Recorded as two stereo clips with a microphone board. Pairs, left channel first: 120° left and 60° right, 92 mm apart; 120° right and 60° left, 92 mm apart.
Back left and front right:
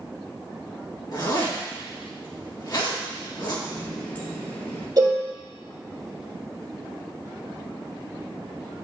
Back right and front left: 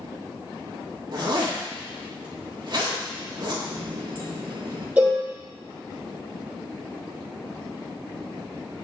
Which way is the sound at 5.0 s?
10° right.